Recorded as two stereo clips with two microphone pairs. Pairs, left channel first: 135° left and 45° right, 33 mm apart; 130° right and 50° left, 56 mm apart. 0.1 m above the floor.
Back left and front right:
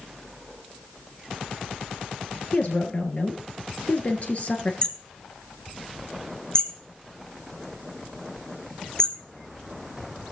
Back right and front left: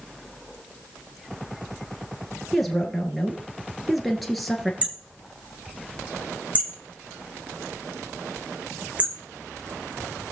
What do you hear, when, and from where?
2.5 s a woman speaking: 145° left, 1.5 m
4.8 s hammering: 100° left, 1.5 m